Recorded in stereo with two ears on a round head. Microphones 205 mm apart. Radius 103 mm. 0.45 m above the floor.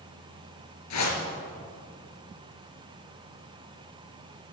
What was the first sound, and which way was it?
A whoosh, 80° left.